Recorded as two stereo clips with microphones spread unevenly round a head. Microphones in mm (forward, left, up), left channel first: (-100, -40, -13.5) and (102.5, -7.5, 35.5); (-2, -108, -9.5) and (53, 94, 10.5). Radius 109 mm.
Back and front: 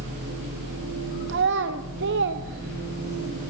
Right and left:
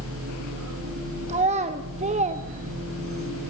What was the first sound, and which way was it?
A machine running, 60° left.